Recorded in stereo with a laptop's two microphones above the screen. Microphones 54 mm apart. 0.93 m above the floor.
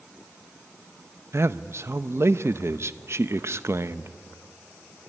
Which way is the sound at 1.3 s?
50° right (ahead or behind).